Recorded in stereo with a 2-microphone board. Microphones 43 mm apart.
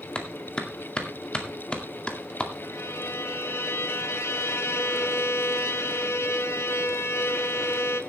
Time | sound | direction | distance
0.1 | a clap | 25° left (ahead or behind) | 2 m
2.6 | a violin | 75° left (ahead or behind) | 1.2 m